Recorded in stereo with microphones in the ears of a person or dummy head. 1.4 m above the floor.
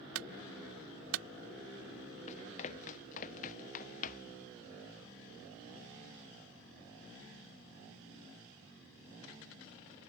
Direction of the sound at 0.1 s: 85° right.